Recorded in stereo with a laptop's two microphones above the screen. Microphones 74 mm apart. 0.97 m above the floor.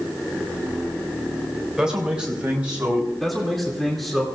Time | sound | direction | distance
1.8 | a man speaking | 10° right (ahead or behind) | 3 m
3.2 | a man speaking | centre (ahead or behind) | 2.5 m